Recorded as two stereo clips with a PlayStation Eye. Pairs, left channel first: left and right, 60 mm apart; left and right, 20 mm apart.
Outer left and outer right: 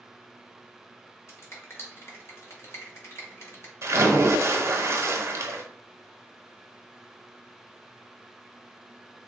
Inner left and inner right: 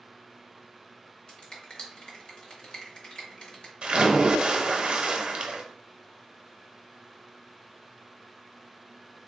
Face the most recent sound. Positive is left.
turn(degrees=-55)  # may be behind; listen again after turning